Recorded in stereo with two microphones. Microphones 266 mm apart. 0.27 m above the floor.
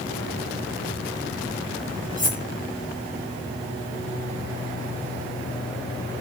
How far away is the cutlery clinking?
About 1.1 m.